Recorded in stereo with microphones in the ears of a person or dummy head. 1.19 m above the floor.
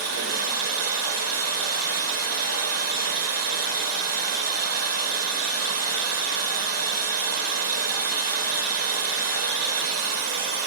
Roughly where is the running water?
Right.